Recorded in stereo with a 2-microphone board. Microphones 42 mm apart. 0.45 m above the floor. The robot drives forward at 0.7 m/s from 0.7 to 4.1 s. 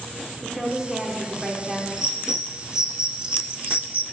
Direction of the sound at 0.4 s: 10° right (ahead or behind).